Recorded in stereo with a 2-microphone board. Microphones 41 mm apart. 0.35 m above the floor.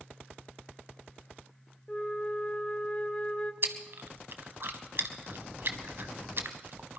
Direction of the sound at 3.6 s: 55° right (ahead or behind).